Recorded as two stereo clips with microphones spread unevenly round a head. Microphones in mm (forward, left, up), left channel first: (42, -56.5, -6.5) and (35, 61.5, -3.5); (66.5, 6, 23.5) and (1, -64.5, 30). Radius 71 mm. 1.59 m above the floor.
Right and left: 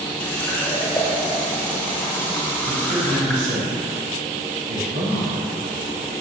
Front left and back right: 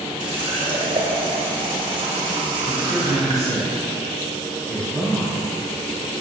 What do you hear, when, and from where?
0.2 s a running tap: 160° right, 0.8 m
2.7 s a man speaking: 135° left, 1.6 m